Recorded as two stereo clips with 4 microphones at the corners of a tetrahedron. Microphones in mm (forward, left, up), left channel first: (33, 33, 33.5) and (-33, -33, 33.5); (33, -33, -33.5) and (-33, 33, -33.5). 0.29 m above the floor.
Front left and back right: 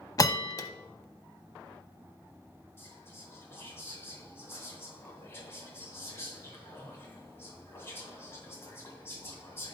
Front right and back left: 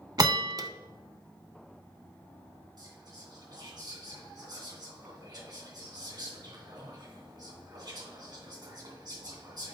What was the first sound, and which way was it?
A bell, 95° left.